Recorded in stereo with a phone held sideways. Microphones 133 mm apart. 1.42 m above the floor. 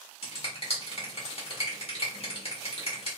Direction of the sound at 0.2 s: 45° left (ahead or behind).